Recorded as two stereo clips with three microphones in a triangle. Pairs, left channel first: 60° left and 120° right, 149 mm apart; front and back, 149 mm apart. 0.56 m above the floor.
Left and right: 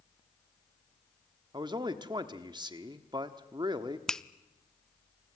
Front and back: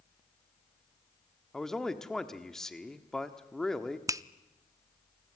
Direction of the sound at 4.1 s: 140° left.